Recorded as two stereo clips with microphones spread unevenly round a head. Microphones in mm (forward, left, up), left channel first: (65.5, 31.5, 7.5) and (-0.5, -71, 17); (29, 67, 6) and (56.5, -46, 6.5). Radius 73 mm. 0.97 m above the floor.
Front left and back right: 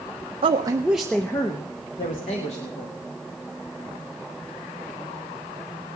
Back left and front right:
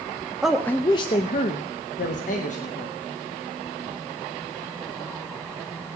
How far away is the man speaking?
About 0.5 m.